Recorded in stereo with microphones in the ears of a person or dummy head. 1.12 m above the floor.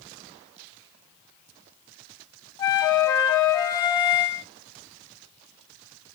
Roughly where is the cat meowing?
I don't hear a cat meowing.